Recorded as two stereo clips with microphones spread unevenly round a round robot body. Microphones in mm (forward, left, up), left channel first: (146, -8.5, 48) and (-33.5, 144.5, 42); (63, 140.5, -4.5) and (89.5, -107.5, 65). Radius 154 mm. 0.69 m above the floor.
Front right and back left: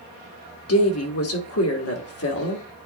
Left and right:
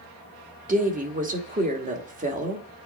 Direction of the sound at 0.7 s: 20° right.